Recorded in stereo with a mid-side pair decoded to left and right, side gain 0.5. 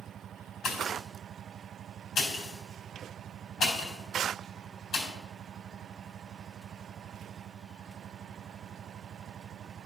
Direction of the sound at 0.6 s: 55° left.